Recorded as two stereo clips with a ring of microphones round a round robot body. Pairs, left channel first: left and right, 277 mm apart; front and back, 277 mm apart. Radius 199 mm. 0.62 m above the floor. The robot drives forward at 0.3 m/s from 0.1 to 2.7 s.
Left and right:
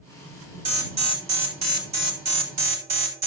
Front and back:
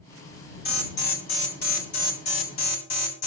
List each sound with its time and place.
0.7 s an alarm: 65° right, 3 m; by 3.3 s 75° right, 2.5 m